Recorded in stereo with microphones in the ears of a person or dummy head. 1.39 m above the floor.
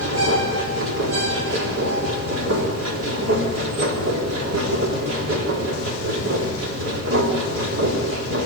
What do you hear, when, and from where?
0.0 s a machine running: 85° right, 3.5 m